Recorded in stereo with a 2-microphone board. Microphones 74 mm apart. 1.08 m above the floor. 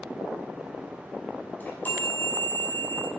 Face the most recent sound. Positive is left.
turn(degrees=25)  # may be behind; listen again after turning